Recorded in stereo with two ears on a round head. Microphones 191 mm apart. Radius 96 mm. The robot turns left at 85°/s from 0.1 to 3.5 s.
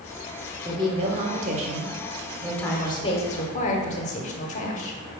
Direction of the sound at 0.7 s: 25° right.